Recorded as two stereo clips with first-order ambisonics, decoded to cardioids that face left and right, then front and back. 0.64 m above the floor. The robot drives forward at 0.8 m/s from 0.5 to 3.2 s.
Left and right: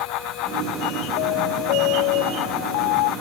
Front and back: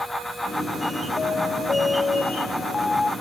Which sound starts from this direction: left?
An alarm, at 1.2 s.